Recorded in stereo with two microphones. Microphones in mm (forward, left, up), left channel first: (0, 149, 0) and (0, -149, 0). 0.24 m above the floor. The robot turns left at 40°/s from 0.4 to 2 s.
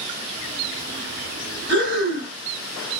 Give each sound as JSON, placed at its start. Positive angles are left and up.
{"t": 1.7, "sound": "breathing", "side_deg": 25, "distance_m": 1.8}